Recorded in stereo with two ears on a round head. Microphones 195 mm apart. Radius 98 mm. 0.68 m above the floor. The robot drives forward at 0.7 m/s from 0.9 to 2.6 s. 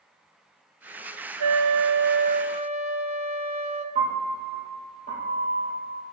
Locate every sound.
1.4 s a flute: 85° right, 0.5 m; by 3.9 s 30° right (ahead or behind), 1.0 m
4.0 s a piano: 35° right (ahead or behind), 5 m